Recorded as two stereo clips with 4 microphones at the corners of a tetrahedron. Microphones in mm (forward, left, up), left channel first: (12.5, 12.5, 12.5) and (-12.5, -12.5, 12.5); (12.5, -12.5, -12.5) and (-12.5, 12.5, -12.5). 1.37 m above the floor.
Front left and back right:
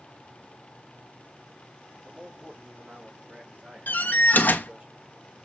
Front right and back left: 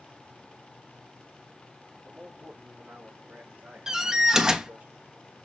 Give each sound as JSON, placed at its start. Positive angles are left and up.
{"t": 2.0, "sound": "a man speaking", "azimuth_deg": 180, "distance_m": 3.0}
{"t": 3.9, "sound": "a door slam", "azimuth_deg": 65, "distance_m": 1.2}